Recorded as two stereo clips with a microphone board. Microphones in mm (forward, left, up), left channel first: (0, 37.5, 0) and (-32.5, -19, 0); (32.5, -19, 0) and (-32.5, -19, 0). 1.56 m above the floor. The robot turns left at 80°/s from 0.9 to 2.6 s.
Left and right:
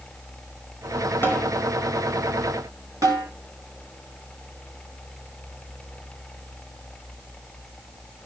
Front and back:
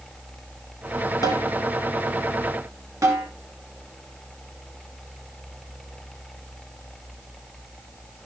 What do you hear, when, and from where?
1.2 s a snare drum: 5° left, 4.5 m; by 1.5 s 15° right, 4.5 m
3.0 s a snare drum: 150° right, 9 m